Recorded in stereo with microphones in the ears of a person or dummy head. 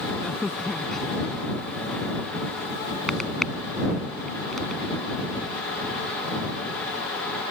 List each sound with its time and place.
0.2 s a crack: centre (ahead or behind)